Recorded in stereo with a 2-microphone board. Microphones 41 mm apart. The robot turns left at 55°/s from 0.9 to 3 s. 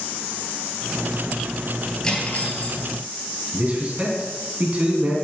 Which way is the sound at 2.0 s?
160° left.